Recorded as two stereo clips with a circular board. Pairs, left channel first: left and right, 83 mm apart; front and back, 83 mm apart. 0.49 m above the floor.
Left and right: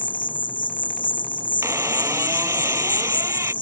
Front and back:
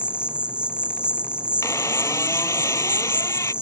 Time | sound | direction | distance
0.0 | an insect | 100° left | ?
1.6 | a squeak | 45° right | ?